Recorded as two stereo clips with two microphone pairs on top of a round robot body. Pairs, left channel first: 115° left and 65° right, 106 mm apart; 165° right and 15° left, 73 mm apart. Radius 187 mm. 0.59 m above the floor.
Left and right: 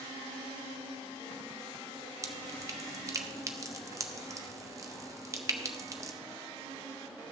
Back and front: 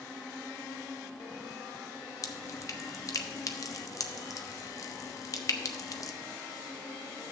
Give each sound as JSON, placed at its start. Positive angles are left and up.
{"t": 2.2, "sound": "dripping", "azimuth_deg": -125, "distance_m": 1.0}